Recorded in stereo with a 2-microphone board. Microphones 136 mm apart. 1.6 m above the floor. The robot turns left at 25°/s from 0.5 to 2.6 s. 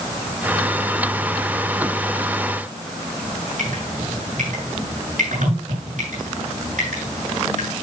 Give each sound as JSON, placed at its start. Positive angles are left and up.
{"t": 3.6, "sound": "dripping", "side_deg": -80, "distance_m": 9.5}